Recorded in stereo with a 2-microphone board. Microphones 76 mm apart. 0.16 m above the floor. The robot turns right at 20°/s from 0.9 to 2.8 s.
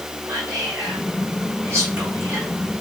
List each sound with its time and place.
0.3 s whispering: 40° right (ahead or behind), 2 m; by 2.5 s 25° right (ahead or behind), 2 m